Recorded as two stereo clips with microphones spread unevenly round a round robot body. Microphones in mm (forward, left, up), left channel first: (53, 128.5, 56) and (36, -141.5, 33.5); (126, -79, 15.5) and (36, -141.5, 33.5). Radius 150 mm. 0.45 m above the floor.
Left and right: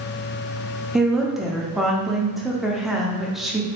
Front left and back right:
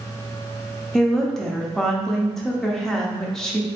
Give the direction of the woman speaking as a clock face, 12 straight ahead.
1 o'clock.